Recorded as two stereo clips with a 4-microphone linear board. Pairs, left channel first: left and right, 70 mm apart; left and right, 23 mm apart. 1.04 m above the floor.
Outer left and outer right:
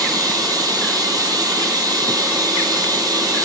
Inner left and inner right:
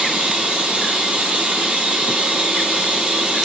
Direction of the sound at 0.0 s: 65° right (ahead or behind).